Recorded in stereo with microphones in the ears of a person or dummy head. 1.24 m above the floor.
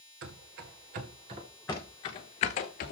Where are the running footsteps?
50° right (ahead or behind), 1.9 m; by 2.9 s 50° left (ahead or behind), 1.8 m.